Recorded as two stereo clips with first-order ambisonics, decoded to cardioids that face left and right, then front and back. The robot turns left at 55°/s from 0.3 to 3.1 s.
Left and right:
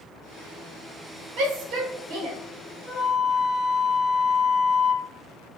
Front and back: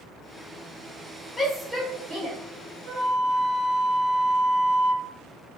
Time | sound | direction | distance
1.4 | a shout | 75° right | 1.5 m
2.9 | a flute | 140° left | 1.6 m